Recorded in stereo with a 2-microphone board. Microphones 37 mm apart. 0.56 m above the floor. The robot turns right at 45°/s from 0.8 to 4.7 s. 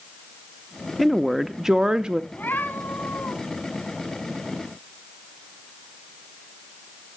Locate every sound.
1.0 s a woman speaking: 5° left (ahead or behind), 0.6 m; by 2.2 s 20° right (ahead or behind), 0.6 m
2.3 s a cat meowing: 45° left, 1.9 m; by 3.3 s 90° left, 1.9 m